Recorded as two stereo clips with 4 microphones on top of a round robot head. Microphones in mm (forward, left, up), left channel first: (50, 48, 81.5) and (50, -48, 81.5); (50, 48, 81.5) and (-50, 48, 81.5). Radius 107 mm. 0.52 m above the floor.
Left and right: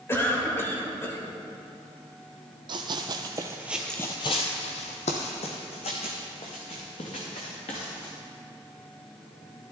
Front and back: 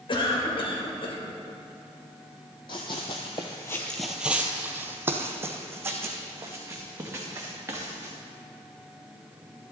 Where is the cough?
25° left, 3 m.